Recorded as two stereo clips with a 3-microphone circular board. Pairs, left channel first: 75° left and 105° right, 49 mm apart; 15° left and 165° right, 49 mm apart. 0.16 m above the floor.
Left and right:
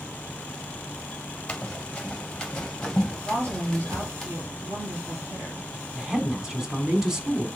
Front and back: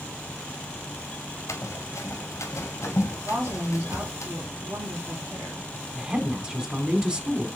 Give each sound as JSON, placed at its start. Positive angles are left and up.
{"t": 1.5, "sound": "running footsteps", "azimuth_deg": 0, "distance_m": 1.5}
{"t": 3.2, "sound": "a woman speaking", "azimuth_deg": -135, "distance_m": 3.5}
{"t": 6.0, "sound": "a woman speaking", "azimuth_deg": -160, "distance_m": 1.1}